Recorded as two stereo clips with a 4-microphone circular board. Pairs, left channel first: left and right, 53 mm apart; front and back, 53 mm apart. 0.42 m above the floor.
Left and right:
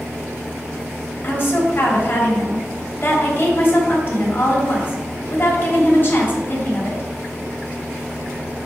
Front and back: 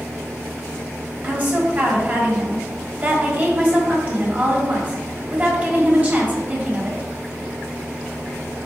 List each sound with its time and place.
1.2 s a woman speaking: 130° left, 2.5 m